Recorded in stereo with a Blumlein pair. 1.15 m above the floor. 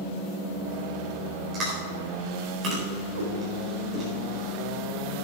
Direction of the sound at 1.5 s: 30° right.